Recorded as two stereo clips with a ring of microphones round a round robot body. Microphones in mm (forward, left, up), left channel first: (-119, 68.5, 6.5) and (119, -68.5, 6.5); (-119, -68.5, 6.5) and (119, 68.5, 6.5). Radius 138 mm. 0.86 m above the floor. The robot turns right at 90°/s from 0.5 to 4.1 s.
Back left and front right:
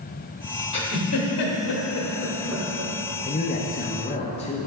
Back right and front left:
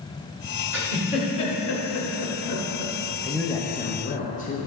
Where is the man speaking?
115° left, 0.6 m; by 4.7 s 170° right, 0.6 m.